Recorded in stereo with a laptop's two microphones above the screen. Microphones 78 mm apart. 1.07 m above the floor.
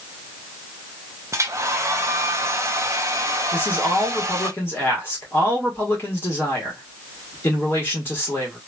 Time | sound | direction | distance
1.3 | a hair dryer | 40° right (ahead or behind) | 0.5 m
3.5 | a man speaking | 30° left (ahead or behind) | 1.3 m